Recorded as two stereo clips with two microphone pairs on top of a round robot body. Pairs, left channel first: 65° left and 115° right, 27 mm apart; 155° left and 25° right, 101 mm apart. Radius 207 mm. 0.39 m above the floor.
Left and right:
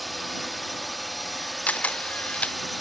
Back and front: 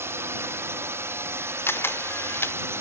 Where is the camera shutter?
85° left.